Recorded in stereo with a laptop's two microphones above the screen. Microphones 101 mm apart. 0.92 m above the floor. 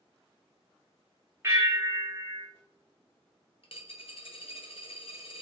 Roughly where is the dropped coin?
Left.